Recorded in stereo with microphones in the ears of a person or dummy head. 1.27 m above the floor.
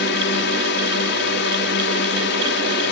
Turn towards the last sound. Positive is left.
turn(degrees=55)  # may be behind; listen again after turning